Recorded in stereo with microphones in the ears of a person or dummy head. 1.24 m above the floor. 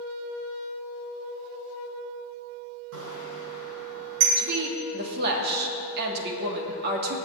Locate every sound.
2.9 s a bicycle bell: 70° right (ahead or behind), 4 m; by 4.3 s 60° right (ahead or behind), 4.5 m
4.4 s a woman speaking: 60° right (ahead or behind), 2.5 m